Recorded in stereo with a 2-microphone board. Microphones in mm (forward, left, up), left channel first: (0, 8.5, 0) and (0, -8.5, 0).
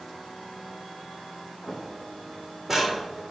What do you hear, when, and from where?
1.7 s footsteps: 10° right (ahead or behind), 2.5 m; by 3.0 s 40° right (ahead or behind), 2.5 m